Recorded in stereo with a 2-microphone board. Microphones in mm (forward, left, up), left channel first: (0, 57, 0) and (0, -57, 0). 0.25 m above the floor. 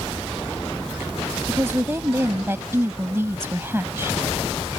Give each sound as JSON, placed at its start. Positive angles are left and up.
{"t": 1.5, "sound": "a woman speaking", "side_deg": -20}